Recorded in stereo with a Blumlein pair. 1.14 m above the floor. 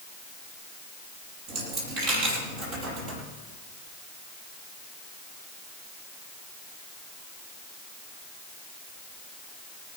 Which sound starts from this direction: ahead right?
A dropped coin, at 1.5 s.